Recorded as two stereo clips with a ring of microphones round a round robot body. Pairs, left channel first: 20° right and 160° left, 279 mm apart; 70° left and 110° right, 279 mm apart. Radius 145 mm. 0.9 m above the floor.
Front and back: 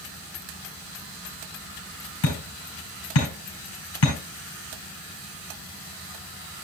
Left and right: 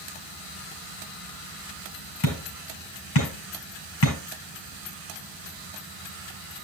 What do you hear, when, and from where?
2.2 s hammering: 25° left, 4.5 m